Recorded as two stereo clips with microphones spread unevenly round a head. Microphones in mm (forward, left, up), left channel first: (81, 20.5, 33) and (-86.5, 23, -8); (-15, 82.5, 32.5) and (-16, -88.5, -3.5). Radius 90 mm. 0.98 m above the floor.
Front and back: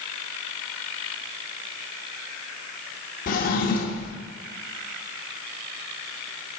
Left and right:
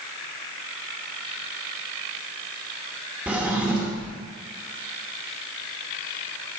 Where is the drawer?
Straight ahead, 0.8 m.